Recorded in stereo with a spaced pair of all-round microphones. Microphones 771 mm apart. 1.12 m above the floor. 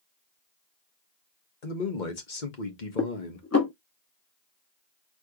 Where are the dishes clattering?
20° left (ahead or behind), 0.9 m.